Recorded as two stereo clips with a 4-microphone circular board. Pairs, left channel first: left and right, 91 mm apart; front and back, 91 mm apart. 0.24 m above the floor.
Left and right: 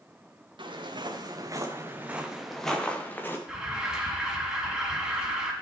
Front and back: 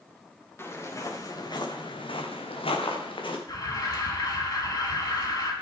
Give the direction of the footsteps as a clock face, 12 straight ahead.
2 o'clock.